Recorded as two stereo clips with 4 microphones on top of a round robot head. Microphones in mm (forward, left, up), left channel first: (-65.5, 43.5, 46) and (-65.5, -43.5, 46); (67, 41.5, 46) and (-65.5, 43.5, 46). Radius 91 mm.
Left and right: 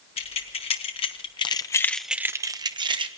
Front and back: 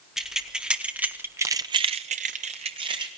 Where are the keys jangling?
90° left, 1.9 m; by 3.1 s 115° right, 1.2 m.